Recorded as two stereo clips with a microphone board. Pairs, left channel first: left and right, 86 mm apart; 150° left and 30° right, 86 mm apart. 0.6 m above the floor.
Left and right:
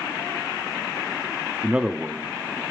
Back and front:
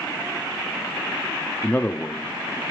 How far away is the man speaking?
About 0.6 m.